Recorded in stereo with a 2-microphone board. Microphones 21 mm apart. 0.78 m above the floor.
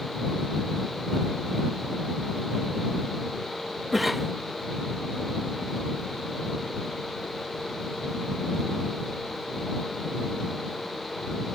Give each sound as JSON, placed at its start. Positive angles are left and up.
{"t": 3.9, "sound": "a cough", "side_deg": -5}